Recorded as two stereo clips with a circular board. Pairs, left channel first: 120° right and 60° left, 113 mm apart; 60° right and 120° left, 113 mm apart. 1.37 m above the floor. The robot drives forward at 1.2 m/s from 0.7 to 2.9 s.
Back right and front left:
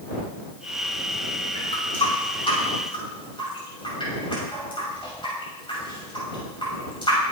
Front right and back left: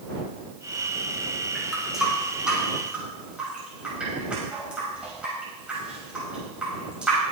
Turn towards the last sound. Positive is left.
turn(degrees=-160)